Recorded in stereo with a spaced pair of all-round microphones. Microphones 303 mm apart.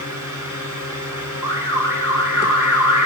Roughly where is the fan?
Left.